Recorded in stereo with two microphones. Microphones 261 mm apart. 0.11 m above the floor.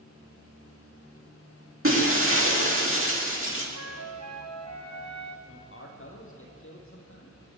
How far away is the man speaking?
About 4 m.